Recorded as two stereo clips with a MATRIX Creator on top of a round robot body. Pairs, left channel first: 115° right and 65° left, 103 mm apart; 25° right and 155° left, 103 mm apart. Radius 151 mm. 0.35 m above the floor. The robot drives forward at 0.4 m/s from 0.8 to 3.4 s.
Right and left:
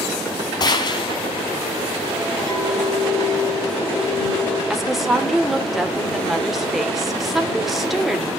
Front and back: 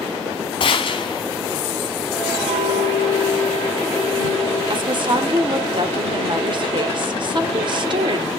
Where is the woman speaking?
155° left, 1.6 m.